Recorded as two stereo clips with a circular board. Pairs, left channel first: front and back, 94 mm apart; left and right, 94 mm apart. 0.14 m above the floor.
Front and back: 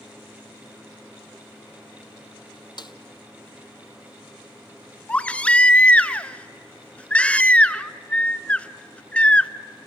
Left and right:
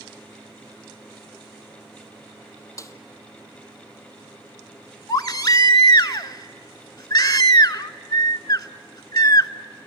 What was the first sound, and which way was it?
A snare drum, 35° left.